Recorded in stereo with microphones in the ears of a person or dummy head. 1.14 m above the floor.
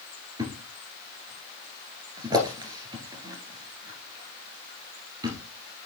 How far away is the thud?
About 2 m.